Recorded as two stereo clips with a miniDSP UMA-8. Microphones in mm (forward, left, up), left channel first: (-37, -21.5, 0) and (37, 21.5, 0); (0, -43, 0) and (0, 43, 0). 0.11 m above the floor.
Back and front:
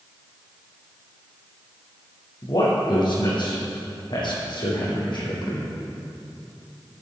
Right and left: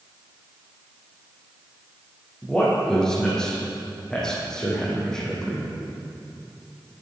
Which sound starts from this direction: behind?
A man speaking, at 2.4 s.